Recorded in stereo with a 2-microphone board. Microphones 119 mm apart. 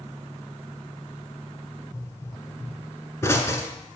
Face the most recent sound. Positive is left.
turn(degrees=20)  # may be behind; listen again after turning